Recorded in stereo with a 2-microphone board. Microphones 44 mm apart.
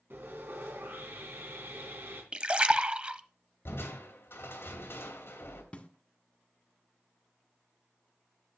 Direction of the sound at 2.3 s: 30° right (ahead or behind).